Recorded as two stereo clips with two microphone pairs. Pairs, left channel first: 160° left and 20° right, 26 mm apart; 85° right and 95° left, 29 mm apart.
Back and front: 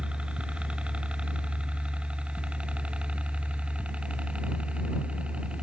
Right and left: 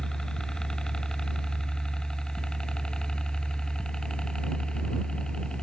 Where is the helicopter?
30° right; by 5.6 s 35° right.